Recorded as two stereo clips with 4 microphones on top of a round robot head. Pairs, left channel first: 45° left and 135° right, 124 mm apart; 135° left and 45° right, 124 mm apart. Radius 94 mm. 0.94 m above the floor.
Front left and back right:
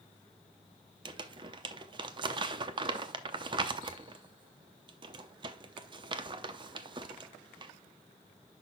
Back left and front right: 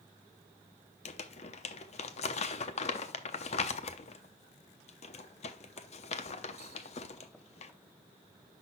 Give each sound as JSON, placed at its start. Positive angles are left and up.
{"t": 1.1, "sound": "crumpling", "azimuth_deg": 170, "distance_m": 0.6}